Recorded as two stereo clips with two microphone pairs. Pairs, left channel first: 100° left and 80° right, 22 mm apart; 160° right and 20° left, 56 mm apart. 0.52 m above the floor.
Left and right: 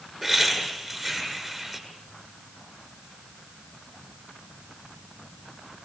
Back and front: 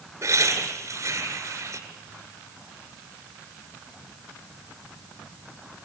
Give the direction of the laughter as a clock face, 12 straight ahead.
12 o'clock.